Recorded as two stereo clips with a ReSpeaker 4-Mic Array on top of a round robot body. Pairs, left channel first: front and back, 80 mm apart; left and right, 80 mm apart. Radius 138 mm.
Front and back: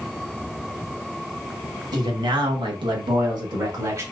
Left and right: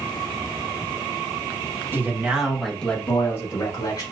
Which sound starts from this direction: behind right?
A man speaking, at 1.9 s.